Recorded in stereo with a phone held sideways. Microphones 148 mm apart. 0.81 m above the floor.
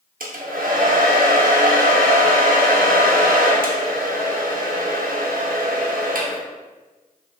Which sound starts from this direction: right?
A hair dryer, at 0.2 s.